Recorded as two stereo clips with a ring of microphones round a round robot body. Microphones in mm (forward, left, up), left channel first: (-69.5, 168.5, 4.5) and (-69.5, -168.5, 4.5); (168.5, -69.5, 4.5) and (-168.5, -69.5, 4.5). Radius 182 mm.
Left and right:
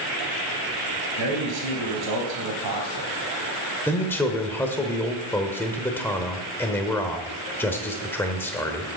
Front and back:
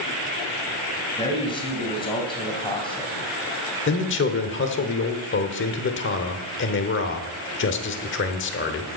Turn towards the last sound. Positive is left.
turn(degrees=10)